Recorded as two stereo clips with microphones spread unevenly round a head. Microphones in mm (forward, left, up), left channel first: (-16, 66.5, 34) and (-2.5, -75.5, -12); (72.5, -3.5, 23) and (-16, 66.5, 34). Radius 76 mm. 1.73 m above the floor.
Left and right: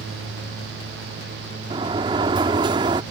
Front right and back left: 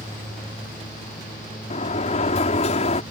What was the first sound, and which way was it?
A sliding door, 15° right.